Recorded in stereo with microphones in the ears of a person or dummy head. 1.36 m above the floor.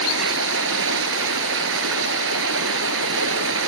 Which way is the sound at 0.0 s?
70° right (ahead or behind).